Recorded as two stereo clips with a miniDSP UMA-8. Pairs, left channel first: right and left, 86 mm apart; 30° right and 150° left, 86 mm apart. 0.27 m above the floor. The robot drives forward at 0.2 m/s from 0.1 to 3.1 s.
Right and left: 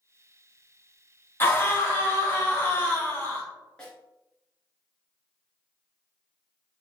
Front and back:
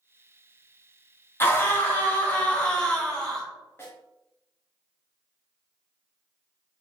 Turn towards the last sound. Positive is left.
turn(degrees=-35)